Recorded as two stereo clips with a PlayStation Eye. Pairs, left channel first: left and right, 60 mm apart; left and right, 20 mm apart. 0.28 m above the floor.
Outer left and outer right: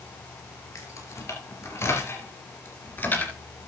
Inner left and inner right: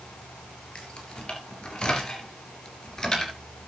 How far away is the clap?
No clap in this recording.